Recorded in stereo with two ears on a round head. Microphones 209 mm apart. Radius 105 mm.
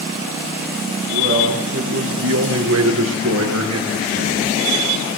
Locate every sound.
1.1 s a man speaking: 60° right (ahead or behind), 7.5 m; by 4.6 s 70° right (ahead or behind), 9.5 m